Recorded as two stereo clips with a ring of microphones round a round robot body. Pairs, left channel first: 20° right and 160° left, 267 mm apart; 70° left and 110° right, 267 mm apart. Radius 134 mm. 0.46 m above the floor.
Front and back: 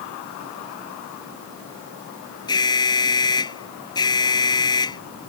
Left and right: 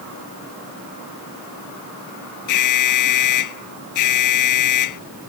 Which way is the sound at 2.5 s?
55° left.